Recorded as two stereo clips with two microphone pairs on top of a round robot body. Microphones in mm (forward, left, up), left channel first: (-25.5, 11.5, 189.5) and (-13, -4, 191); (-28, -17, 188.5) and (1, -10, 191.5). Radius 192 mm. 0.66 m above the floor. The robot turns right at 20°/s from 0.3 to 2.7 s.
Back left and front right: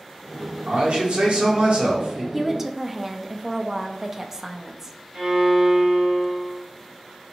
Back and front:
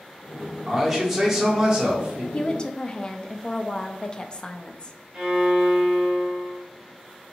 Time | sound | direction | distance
0.7 | a man speaking | 75° right | 1.2 m
2.3 | a woman speaking | 130° right | 0.6 m
5.1 | a violin | 60° right | 1.1 m